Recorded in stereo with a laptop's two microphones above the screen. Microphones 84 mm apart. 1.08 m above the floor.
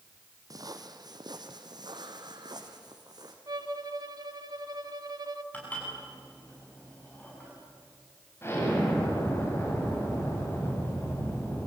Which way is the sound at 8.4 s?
30° left (ahead or behind).